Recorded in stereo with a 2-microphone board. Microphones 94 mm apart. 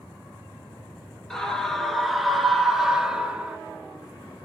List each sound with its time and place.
1.3 s a scream: 5° left (ahead or behind), 2 m; by 3.6 s 15° right (ahead or behind), 1.2 m